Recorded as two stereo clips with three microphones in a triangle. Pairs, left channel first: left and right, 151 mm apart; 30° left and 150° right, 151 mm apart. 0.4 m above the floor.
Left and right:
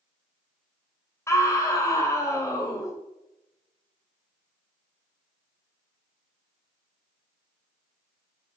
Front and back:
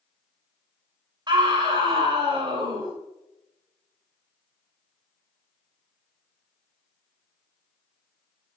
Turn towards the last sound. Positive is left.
turn(degrees=155)